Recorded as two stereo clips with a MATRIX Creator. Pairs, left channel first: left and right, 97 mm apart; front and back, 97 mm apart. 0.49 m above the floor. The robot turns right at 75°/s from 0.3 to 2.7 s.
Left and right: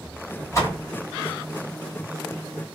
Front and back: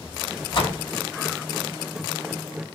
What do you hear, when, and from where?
0.5 s a door slam: 30° left, 1.9 m; by 0.8 s 55° left, 1.9 m